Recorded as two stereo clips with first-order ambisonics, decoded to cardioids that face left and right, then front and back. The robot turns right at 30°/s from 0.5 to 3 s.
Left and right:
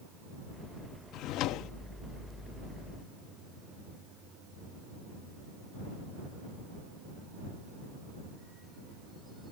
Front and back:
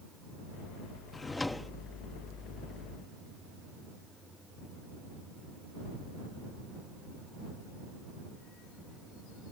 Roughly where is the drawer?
Left.